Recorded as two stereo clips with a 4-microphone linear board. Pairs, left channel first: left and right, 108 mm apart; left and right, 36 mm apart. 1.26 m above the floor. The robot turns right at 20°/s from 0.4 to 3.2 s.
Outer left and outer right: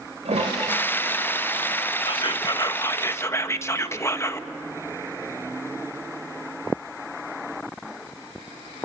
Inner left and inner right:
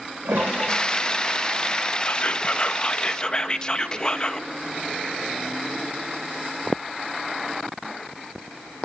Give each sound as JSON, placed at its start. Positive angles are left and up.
{"t": 0.2, "sound": "a toilet flushing", "azimuth_deg": -75, "distance_m": 5.0}
{"t": 2.0, "sound": "whispering", "side_deg": 45, "distance_m": 1.5}